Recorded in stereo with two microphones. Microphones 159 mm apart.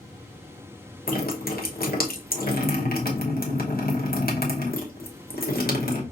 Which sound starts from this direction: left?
Dripping, at 1.1 s.